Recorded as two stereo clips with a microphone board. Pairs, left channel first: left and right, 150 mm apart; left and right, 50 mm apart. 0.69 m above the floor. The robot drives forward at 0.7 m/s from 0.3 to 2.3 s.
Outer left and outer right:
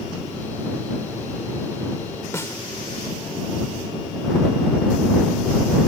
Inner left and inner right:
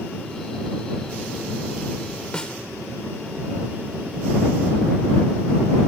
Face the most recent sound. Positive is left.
turn(degrees=20)  # may be behind; listen again after turning